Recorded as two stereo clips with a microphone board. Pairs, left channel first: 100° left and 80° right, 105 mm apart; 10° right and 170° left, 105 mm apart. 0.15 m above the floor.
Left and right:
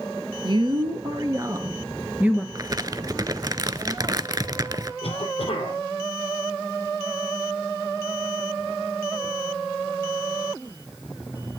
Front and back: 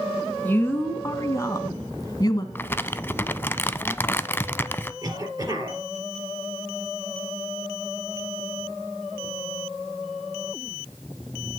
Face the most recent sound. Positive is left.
turn(degrees=115)